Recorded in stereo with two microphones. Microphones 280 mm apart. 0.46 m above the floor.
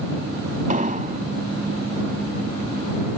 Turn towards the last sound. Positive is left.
turn(degrees=-30)  # may be behind; listen again after turning